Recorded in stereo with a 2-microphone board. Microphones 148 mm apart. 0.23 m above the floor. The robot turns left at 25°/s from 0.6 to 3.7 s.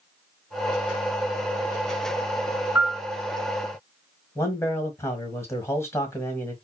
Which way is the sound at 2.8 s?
25° right (ahead or behind).